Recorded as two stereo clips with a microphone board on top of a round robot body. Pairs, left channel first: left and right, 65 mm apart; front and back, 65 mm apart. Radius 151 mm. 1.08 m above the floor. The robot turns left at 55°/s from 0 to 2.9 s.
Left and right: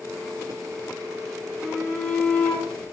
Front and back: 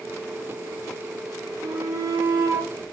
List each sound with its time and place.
1.6 s a shout: 165° right, 6.5 m; by 2.9 s 125° left, 6.5 m